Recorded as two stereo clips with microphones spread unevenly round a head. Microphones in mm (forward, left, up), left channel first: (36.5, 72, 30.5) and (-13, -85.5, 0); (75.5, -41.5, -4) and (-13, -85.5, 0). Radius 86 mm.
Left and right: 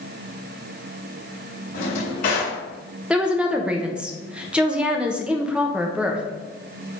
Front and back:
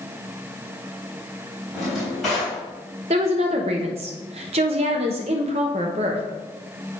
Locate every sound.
1.7 s a drawer: 115° left, 3.5 m
3.1 s a woman speaking: 175° left, 1.0 m